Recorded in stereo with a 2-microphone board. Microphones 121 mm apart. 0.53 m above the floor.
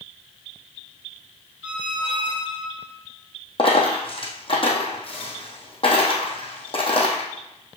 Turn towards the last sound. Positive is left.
turn(degrees=45)  # may be behind; listen again after turning